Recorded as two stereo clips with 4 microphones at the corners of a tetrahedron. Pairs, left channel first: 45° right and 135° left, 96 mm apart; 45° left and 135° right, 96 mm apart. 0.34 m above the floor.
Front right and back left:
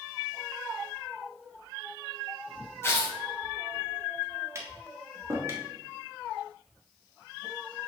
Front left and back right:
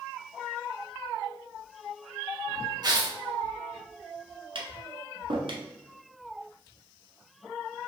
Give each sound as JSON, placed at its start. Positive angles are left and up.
{"t": 2.8, "sound": "tearing paper", "azimuth_deg": -100, "distance_m": 1.2}
{"t": 4.5, "sound": "tapping", "azimuth_deg": -165, "distance_m": 1.2}